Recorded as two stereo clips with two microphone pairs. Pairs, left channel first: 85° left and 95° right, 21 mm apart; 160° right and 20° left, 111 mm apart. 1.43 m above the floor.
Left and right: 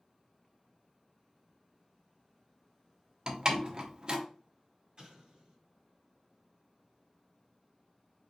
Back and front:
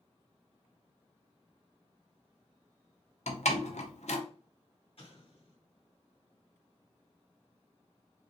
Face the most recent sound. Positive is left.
turn(degrees=-130)